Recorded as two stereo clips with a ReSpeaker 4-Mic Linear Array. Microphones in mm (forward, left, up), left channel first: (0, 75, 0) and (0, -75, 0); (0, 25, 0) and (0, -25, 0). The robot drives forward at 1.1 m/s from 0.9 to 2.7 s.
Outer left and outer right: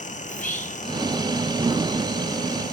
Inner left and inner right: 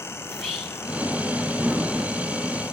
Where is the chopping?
No chopping in this recording.